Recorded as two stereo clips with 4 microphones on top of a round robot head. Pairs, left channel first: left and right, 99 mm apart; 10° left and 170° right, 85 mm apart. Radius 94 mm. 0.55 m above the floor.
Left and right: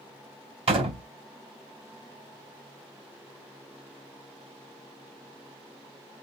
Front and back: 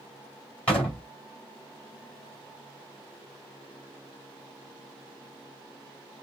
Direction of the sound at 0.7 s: 65° right.